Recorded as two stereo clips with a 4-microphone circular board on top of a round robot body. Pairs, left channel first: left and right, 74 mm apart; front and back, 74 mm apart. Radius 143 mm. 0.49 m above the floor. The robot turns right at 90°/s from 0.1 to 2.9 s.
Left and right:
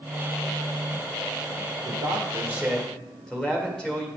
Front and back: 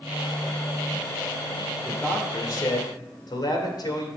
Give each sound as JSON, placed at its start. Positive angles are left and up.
{"t": 1.9, "sound": "a man speaking", "azimuth_deg": -85, "distance_m": 1.9}